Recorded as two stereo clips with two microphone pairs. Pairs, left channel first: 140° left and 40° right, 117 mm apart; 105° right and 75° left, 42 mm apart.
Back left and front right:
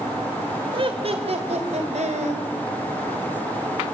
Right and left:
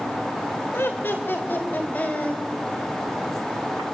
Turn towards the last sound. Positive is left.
turn(degrees=-55)